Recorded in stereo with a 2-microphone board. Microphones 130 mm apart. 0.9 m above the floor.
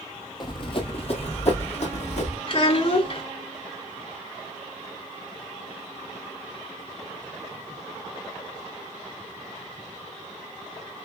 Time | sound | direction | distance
0.4 | running footsteps | 35° left (ahead or behind) | 1.2 m
2.5 | a child speaking | 50° left (ahead or behind) | 1.8 m